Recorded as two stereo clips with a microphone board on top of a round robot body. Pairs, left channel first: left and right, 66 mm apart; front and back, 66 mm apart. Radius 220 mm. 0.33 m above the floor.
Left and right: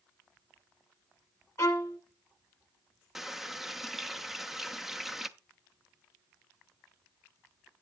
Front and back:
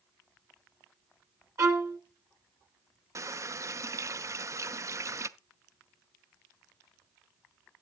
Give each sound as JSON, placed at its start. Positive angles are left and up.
{"t": 1.6, "sound": "a violin", "azimuth_deg": 140, "distance_m": 1.9}
{"t": 3.1, "sound": "a running tap", "azimuth_deg": -175, "distance_m": 0.8}